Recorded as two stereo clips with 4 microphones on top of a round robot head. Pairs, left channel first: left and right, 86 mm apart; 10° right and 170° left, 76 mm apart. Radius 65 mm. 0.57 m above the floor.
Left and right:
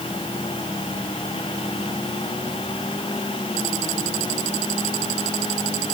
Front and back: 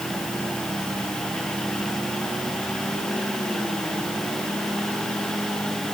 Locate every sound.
Only background noise.